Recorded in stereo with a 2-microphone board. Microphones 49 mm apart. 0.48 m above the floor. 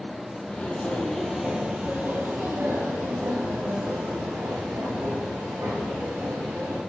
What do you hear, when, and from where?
0.5 s footsteps: 25° left (ahead or behind), 0.9 m; by 6.8 s 80° right, 3 m